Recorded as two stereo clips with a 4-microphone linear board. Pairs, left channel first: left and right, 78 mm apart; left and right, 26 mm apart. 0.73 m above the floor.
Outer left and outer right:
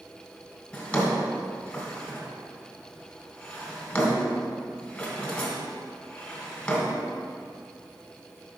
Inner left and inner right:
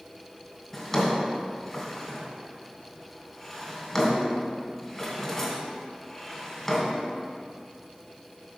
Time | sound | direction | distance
0.7 | a drawer | 20° left (ahead or behind) | 1.5 m